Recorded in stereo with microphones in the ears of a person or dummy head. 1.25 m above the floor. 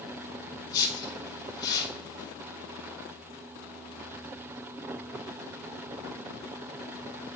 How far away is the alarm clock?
No alarm clock in this recording.